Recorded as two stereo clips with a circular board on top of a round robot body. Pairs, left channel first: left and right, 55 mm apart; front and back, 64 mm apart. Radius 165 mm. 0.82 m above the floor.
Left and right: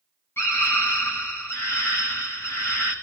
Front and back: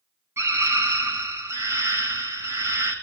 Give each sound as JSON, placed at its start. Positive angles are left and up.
{"t": 0.4, "sound": "a scream", "azimuth_deg": 135, "distance_m": 6.5}